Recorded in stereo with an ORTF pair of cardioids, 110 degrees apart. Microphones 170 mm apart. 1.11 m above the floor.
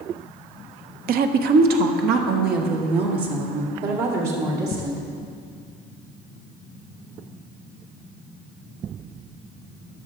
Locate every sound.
1.1 s a woman speaking: 65° right, 0.6 m; by 5.0 s 70° right, 3 m